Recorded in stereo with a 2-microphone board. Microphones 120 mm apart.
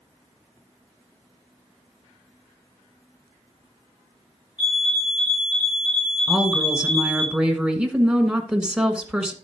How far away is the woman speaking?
About 1.4 m.